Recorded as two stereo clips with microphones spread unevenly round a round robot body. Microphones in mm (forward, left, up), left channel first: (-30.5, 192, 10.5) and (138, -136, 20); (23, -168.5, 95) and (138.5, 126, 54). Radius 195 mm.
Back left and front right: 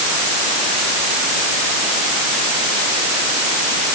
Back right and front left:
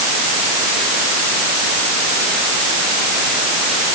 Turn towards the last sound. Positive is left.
No sound to turn to.